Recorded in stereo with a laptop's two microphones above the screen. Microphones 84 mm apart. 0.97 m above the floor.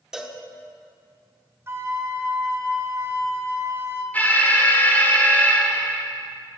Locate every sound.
0.1 s a cowbell: 5° right (ahead or behind), 0.8 m
1.7 s a flute: 30° right (ahead or behind), 1.4 m
4.1 s an alarm: 20° left (ahead or behind), 1.3 m